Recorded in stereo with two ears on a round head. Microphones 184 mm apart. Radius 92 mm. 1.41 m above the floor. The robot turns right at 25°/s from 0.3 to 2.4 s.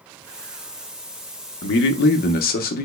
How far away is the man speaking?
About 0.7 m.